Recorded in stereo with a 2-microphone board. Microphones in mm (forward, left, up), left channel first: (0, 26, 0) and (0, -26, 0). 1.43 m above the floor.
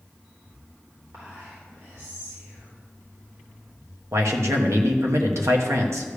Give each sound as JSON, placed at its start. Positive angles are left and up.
{"t": 1.1, "sound": "whispering", "side_deg": -75, "distance_m": 4.0}
{"t": 4.1, "sound": "a man speaking", "side_deg": -70, "distance_m": 1.2}